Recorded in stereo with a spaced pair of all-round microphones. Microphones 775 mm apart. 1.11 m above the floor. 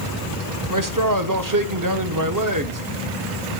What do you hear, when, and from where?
0.7 s a man speaking: 25° right (ahead or behind), 0.8 m